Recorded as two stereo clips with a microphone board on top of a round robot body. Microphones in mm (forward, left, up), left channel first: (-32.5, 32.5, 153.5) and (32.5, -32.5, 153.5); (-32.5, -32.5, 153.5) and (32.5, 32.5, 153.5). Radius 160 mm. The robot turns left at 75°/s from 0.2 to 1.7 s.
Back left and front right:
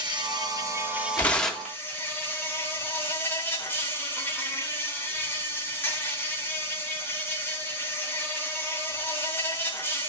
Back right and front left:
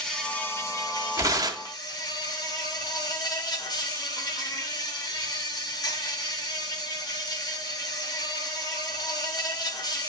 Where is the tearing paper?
75° left, 1.8 m; by 1.8 s 35° left, 1.8 m.